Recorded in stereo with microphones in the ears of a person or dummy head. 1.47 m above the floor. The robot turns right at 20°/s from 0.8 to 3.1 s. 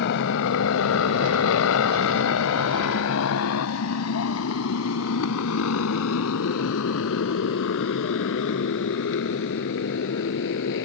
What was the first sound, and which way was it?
A motorcycle, 55° left (ahead or behind).